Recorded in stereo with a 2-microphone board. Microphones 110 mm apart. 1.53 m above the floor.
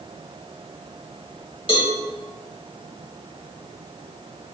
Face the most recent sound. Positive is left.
turn(degrees=55)  # may be behind; listen again after turning